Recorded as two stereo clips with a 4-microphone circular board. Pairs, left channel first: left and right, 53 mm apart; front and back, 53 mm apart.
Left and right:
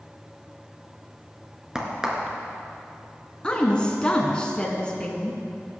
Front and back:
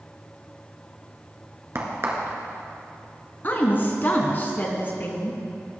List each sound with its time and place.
1.8 s a crack: 165° right, 1.9 m
3.4 s a woman speaking: 30° left, 1.7 m